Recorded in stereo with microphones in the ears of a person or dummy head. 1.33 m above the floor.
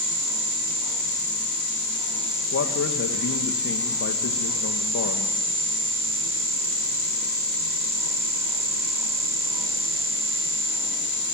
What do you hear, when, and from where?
2.5 s a man speaking: 65° left (ahead or behind), 1.5 m